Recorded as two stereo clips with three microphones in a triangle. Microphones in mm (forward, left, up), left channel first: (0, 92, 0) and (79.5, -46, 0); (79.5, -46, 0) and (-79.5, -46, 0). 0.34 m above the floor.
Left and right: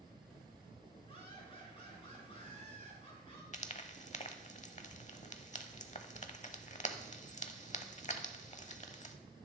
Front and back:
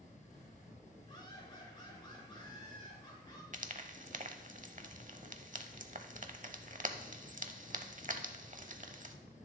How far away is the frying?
About 0.8 m.